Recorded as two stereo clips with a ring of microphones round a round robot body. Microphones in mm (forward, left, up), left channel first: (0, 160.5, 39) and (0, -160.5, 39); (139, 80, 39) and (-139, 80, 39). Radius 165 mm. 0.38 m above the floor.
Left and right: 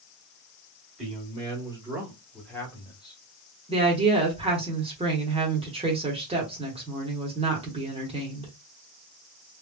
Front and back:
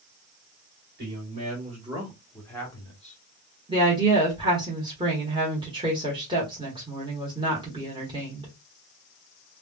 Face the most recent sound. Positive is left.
turn(degrees=-135)